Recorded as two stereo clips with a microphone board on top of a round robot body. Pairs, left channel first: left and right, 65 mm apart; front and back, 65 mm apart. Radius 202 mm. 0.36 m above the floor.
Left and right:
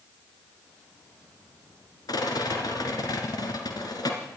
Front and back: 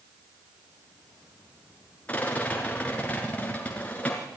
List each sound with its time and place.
2.1 s a rattle: 70° left, 2.5 m